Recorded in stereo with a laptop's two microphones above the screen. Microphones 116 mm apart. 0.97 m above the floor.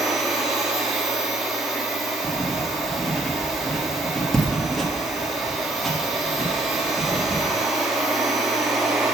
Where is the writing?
Centre (ahead or behind), 1.3 m.